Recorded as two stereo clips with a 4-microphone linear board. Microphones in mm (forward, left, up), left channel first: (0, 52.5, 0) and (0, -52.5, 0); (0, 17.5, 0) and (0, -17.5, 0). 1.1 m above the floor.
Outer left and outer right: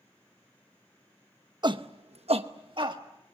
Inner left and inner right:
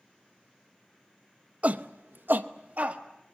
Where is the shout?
45° right (ahead or behind), 0.9 m.